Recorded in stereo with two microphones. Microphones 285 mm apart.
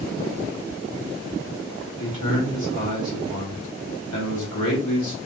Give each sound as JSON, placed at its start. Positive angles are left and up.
{"t": 2.0, "sound": "a man speaking", "side_deg": 85, "distance_m": 2.5}